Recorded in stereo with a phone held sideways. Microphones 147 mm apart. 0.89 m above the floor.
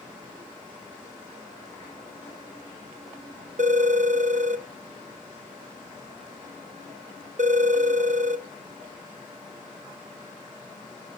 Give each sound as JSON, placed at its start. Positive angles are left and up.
{"t": 3.6, "sound": "a phone ringing", "side_deg": -55, "distance_m": 0.6}